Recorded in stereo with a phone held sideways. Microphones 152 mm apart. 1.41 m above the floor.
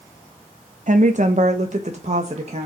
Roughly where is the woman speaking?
Right.